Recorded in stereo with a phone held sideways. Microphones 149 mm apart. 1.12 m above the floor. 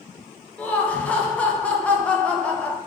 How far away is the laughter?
About 0.5 m.